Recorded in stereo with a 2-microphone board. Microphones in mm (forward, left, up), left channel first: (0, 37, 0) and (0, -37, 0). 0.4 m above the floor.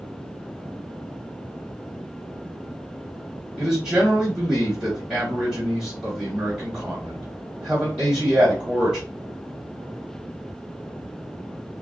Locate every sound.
3.6 s a man speaking: 20° right (ahead or behind), 2.5 m